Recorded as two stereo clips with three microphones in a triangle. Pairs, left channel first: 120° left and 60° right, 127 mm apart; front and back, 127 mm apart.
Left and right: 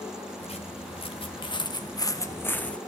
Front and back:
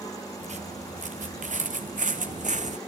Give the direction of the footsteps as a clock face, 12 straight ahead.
7 o'clock.